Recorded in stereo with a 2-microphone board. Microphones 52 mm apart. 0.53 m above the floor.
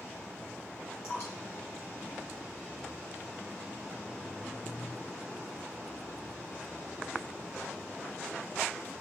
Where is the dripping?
55° left (ahead or behind), 3 m.